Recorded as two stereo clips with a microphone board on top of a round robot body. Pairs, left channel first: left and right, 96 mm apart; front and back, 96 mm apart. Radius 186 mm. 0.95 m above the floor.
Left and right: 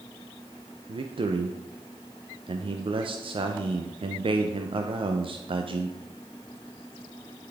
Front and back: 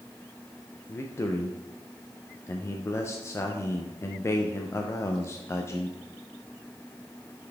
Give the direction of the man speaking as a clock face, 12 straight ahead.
2 o'clock.